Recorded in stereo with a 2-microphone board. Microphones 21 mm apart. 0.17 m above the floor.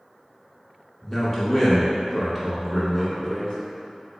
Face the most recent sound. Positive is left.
turn(degrees=40)  # may be behind; listen again after turning